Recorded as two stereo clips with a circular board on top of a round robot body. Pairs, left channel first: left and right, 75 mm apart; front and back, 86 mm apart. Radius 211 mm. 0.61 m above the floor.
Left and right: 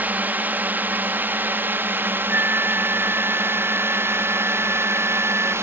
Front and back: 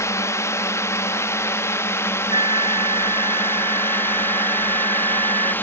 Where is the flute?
155° right.